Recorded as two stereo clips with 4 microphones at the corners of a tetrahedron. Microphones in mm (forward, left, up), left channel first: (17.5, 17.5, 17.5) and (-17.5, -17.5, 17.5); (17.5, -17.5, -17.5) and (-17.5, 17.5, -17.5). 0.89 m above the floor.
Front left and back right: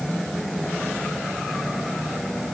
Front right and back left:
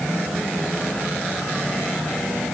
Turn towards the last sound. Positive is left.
No sound to turn to.